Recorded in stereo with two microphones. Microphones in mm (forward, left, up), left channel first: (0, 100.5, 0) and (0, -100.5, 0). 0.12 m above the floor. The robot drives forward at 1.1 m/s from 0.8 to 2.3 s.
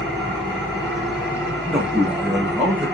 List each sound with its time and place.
0.0 s an engine running: 5° left (ahead or behind), 5 m; by 3.0 s centre (ahead or behind), 6.5 m
1.6 s a man speaking: 5° right (ahead or behind), 3.5 m